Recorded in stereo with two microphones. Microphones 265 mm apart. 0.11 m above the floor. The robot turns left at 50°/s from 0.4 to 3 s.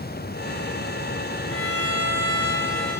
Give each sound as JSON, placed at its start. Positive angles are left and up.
{"t": 1.5, "sound": "a violin", "azimuth_deg": 135, "distance_m": 6.0}